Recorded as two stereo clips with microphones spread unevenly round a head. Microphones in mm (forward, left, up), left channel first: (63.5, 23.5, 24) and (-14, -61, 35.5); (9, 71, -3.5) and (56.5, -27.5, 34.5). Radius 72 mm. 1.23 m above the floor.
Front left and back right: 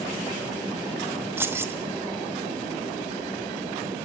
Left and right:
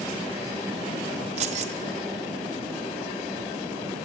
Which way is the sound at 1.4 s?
65° right.